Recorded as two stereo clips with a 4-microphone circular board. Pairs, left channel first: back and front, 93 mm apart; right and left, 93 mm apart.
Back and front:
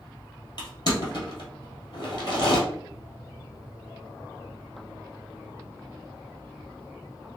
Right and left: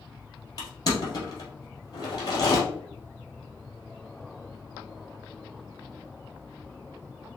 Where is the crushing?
140° right, 2.5 m.